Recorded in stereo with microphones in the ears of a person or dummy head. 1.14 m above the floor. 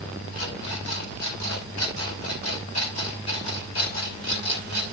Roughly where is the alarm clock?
Left.